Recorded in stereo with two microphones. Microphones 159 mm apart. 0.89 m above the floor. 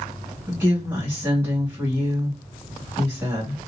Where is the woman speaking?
15° right (ahead or behind), 2 m.